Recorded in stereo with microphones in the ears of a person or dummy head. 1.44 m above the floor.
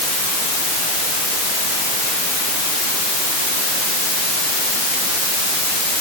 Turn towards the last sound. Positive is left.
No sound to turn to.